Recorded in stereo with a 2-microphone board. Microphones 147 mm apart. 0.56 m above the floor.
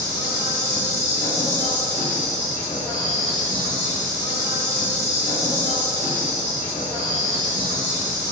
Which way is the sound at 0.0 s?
65° left (ahead or behind).